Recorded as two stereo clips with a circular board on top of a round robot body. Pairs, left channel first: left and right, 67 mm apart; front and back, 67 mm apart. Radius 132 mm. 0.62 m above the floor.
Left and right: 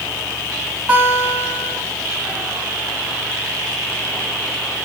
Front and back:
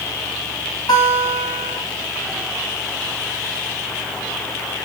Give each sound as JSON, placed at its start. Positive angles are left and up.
{"t": 0.9, "sound": "a guitar", "azimuth_deg": -20, "distance_m": 4.0}